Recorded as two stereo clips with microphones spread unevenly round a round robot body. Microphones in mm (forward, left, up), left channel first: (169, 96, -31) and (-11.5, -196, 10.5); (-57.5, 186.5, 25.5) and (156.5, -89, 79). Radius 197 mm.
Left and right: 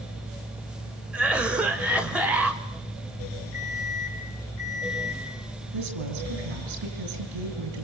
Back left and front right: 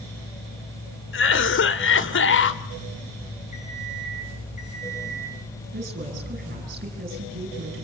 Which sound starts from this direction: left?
An alarm clock, at 3.5 s.